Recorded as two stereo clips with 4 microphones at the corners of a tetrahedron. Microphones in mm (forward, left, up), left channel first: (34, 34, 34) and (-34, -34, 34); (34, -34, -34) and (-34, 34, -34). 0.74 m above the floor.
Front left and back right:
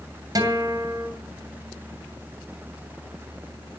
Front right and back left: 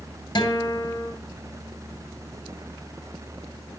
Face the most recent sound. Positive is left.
turn(degrees=-85)